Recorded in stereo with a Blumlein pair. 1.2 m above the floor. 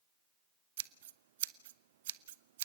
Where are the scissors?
55° right, 0.8 m.